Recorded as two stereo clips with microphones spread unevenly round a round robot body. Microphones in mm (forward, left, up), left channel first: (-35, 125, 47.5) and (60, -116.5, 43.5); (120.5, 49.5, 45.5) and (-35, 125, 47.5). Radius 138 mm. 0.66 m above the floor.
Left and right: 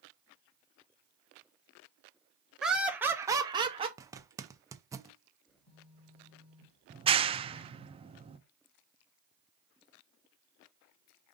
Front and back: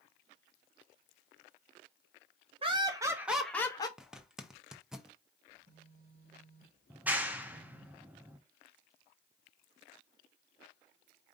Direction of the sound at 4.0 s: 125° right.